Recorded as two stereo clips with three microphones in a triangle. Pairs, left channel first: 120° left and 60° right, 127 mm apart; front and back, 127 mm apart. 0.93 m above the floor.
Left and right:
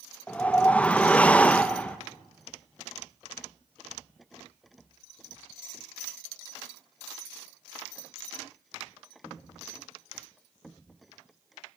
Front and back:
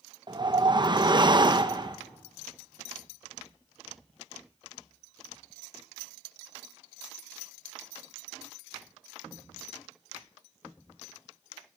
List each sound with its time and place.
0.3 s a whoosh: 170° right, 0.9 m